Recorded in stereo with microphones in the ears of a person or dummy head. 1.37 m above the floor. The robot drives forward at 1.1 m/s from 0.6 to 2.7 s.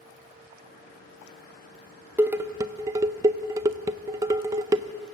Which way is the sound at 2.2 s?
10° right (ahead or behind).